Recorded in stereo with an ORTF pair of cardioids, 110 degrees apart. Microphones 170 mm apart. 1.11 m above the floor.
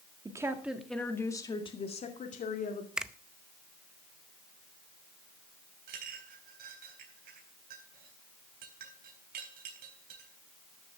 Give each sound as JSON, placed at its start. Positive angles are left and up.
{"t": 0.2, "sound": "a woman speaking", "azimuth_deg": -20, "distance_m": 2.0}
{"t": 3.0, "sound": "a finger snap", "azimuth_deg": -5, "distance_m": 0.6}
{"t": 5.9, "sound": "a clink", "azimuth_deg": -65, "distance_m": 3.5}